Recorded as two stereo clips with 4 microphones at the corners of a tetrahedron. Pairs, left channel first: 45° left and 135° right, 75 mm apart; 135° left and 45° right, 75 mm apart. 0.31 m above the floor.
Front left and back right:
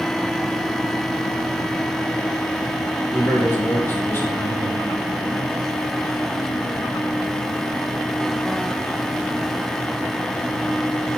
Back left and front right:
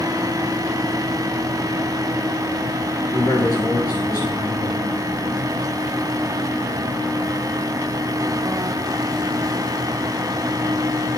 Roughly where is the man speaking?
Left.